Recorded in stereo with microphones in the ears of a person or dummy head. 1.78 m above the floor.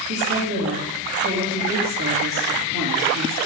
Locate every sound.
0.1 s a woman speaking: 70° right (ahead or behind), 2.5 m